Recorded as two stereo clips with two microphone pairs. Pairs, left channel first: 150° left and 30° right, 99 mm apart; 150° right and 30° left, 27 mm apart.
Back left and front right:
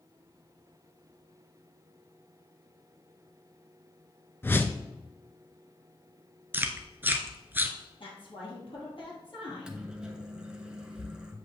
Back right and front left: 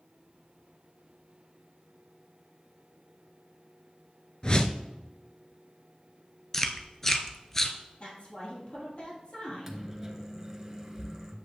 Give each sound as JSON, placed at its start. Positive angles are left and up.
{"t": 4.4, "sound": "a whoosh", "azimuth_deg": -160, "distance_m": 0.5}
{"t": 6.5, "sound": "chewing", "azimuth_deg": -80, "distance_m": 0.6}
{"t": 8.0, "sound": "a woman speaking", "azimuth_deg": 175, "distance_m": 2.5}
{"t": 9.5, "sound": "a microwave", "azimuth_deg": 25, "distance_m": 0.9}